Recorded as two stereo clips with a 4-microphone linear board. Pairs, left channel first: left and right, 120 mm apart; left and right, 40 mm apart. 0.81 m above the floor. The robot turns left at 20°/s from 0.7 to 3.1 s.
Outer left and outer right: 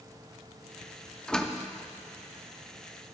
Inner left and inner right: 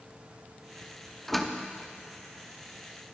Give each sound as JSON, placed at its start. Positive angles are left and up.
{"t": 1.3, "sound": "a door slam", "side_deg": 5, "distance_m": 0.7}